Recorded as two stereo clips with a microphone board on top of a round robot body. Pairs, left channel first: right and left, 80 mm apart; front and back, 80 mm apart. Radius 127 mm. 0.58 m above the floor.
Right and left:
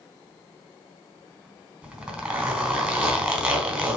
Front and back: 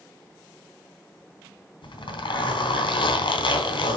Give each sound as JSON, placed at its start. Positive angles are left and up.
{"t": 1.8, "sound": "a zipper", "azimuth_deg": 15, "distance_m": 2.5}